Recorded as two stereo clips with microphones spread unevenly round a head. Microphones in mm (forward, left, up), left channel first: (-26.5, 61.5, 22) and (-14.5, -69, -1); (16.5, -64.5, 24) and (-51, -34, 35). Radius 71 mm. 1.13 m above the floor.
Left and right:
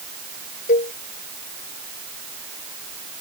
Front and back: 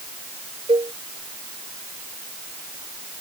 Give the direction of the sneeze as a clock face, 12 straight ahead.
No sneeze in this recording.